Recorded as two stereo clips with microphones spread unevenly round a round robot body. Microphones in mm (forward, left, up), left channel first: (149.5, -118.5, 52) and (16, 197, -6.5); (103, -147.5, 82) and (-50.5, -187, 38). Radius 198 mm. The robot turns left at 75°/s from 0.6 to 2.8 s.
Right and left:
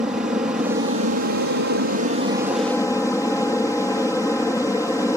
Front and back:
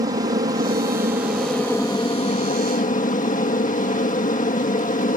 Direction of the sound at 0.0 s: 175° right.